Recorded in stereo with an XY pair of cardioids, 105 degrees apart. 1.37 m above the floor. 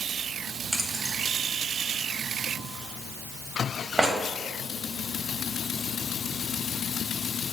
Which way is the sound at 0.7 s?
15° right.